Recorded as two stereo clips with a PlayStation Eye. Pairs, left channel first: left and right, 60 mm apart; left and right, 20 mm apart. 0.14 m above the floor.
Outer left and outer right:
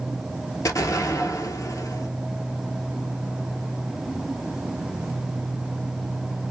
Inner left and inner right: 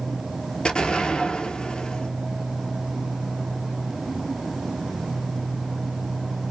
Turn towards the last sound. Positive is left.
turn(degrees=65)  # may be behind; listen again after turning